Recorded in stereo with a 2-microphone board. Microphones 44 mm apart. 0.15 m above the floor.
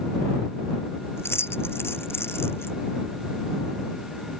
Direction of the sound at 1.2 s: 75° left (ahead or behind).